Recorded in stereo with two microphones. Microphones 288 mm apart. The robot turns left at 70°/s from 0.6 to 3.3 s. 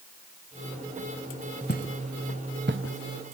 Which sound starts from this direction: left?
Footsteps, at 1.7 s.